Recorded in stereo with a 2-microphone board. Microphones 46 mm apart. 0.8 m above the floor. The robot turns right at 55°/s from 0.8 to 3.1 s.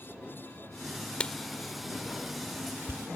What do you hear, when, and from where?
1.2 s writing: 25° left (ahead or behind); by 3.1 s 75° right (ahead or behind)